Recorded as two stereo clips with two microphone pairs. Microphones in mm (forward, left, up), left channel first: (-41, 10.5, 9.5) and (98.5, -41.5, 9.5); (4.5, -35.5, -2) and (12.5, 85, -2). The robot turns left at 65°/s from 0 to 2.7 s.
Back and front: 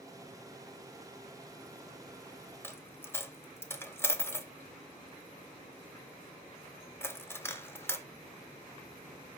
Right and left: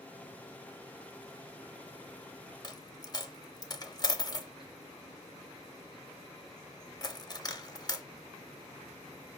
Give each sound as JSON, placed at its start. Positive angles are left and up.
{"t": 2.6, "sound": "a dropped coin", "azimuth_deg": -125, "distance_m": 0.6}